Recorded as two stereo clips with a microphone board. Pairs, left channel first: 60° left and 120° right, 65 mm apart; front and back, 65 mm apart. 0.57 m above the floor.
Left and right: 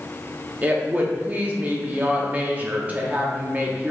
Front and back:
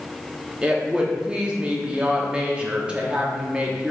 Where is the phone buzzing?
No phone buzzing in this recording.